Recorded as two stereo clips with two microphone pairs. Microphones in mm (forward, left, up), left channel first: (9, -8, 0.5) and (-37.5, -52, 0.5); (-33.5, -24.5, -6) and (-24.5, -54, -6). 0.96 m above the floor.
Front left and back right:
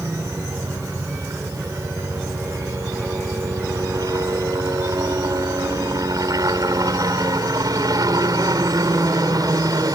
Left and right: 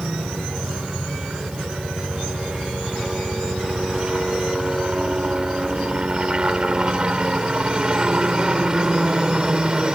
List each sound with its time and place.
0.0 s a helicopter: 125° right; by 10.0 s 135° right